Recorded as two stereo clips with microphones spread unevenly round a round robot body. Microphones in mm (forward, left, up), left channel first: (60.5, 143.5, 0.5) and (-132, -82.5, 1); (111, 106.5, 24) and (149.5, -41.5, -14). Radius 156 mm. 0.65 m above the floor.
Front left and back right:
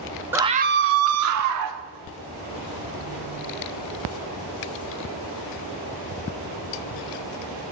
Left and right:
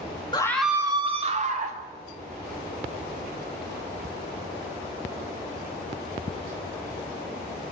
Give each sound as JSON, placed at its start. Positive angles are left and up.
{"t": 0.3, "sound": "a scream", "azimuth_deg": 160, "distance_m": 0.9}